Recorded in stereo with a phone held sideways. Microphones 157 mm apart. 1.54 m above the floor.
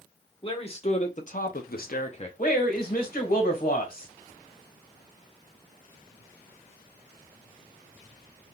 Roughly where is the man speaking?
Left.